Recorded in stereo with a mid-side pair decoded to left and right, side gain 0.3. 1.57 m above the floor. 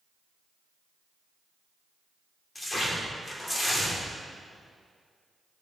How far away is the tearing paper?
About 3 m.